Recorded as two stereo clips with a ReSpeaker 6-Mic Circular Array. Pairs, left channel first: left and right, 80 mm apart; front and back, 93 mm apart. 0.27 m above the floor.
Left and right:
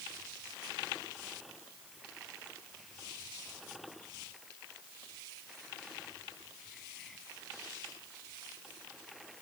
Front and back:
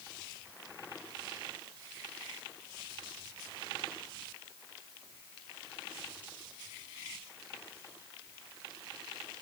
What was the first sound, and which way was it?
Only background noise.